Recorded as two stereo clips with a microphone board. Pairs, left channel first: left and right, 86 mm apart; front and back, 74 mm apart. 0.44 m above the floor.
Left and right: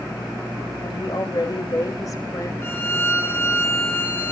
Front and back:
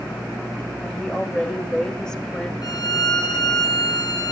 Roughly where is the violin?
Ahead left.